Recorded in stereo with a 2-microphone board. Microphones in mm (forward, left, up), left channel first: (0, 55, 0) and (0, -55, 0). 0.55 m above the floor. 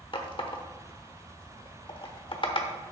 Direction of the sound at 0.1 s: 50° left (ahead or behind).